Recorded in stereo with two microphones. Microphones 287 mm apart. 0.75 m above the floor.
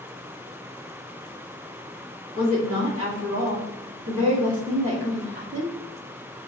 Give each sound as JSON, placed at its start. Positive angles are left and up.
{"t": 2.4, "sound": "a woman speaking", "side_deg": -50, "distance_m": 1.6}